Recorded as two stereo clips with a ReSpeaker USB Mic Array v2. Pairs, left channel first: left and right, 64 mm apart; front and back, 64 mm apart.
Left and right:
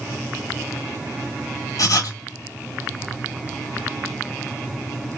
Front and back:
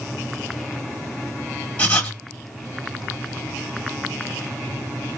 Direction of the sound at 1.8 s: 65° left.